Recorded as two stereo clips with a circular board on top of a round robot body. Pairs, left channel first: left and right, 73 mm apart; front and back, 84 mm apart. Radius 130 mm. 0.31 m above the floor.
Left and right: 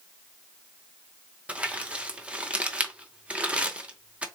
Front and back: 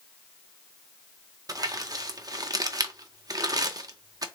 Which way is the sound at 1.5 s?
160° right.